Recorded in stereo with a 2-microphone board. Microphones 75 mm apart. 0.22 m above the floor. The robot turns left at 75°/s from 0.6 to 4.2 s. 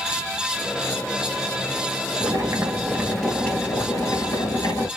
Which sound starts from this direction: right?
Boiling, at 2.2 s.